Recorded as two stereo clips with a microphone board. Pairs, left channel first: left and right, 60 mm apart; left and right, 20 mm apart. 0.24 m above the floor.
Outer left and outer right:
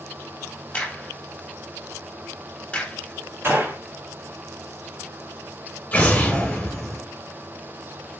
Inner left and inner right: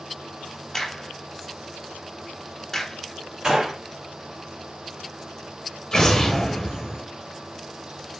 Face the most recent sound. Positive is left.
turn(degrees=25)  # may be behind; listen again after turning